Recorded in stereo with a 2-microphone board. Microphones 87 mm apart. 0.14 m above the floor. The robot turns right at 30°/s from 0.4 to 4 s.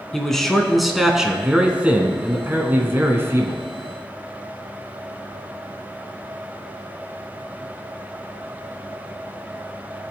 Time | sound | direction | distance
0.1 | a man speaking | 5° left (ahead or behind) | 1.3 m